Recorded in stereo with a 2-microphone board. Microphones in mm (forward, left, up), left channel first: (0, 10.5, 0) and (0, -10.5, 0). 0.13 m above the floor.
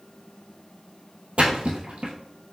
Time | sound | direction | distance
1.4 | a splash | 75° right (ahead or behind) | 1.1 m